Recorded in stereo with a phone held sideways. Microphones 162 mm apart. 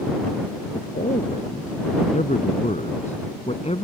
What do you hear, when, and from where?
0.7 s a man speaking: 55° left (ahead or behind); by 3.9 s 40° left (ahead or behind)